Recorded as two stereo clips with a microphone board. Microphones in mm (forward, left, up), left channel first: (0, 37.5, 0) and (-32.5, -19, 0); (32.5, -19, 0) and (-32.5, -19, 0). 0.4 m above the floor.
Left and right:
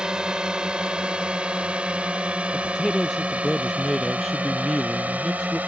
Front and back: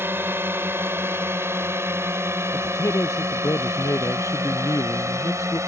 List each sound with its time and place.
0.0 s a drone: 170° left; by 5.7 s straight behind
2.5 s a man speaking: 30° right